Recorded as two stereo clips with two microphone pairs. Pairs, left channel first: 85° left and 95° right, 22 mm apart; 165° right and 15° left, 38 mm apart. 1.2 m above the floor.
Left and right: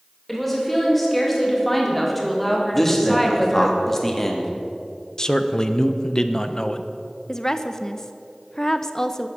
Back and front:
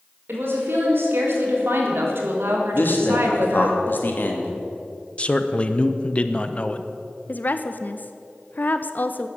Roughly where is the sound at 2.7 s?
Behind.